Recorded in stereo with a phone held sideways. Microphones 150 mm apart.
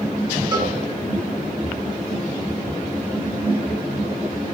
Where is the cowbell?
30° right (ahead or behind), 4 m.